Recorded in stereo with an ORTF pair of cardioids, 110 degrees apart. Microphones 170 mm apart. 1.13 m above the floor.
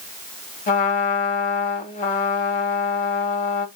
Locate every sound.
0.7 s a trumpet: 50° left, 1.7 m